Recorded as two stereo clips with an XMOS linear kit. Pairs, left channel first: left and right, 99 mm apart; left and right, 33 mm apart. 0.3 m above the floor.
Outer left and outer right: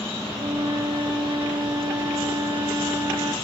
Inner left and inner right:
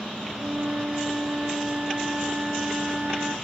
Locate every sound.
0.3 s a flute: 50° right (ahead or behind), 0.6 m